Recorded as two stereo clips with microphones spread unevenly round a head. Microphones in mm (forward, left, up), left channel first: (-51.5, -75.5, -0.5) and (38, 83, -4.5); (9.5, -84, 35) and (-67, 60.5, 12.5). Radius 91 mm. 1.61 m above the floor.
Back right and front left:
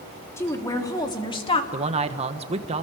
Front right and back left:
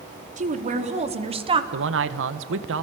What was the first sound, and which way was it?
A woman speaking, 165° left.